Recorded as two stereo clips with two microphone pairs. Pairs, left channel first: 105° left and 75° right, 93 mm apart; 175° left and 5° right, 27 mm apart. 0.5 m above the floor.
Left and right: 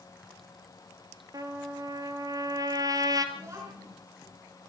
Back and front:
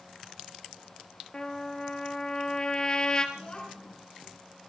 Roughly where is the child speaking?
Behind right.